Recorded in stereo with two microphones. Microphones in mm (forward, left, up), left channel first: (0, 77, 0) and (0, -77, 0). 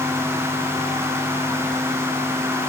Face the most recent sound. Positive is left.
No sound to turn to.